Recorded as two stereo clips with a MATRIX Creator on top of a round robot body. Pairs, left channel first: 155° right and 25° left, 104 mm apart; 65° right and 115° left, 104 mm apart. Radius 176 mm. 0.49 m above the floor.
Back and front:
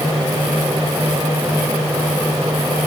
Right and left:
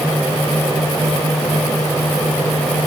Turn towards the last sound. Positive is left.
No sound to turn to.